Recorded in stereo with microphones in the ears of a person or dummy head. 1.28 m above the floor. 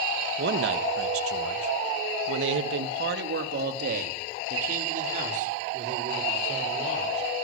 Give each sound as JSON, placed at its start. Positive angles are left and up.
{"t": 0.4, "sound": "a man speaking", "side_deg": -45, "distance_m": 1.8}